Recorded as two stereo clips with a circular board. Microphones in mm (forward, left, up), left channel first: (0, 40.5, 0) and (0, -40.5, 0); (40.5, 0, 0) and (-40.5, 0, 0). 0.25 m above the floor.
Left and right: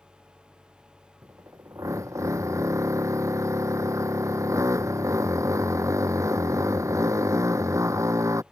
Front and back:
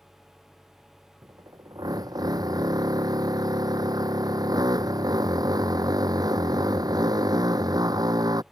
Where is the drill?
140° right.